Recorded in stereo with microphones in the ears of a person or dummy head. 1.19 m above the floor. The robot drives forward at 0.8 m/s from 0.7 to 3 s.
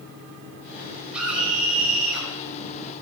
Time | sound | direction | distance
1.1 | a scream | 5° right (ahead or behind) | 5.5 m